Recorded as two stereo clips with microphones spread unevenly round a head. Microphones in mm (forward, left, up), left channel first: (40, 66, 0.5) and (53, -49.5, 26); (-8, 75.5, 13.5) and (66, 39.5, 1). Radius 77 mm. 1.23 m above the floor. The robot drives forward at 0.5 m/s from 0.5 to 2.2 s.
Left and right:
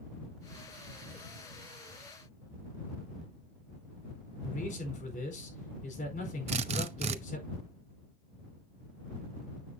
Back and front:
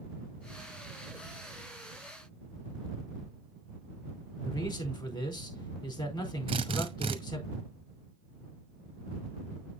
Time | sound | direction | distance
4.4 | a man speaking | 125° left | 4.5 m
6.5 | a drill | 75° right | 0.8 m